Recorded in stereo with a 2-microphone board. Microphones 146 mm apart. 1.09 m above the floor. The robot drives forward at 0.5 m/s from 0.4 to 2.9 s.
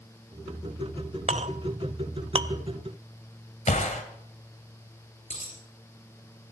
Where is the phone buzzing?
I don't hear a phone buzzing.